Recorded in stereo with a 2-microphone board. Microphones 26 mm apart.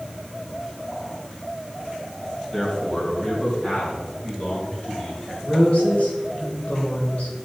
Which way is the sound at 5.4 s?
60° left (ahead or behind).